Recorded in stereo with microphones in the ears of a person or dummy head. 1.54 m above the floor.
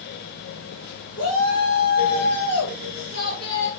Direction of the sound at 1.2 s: 75° left (ahead or behind).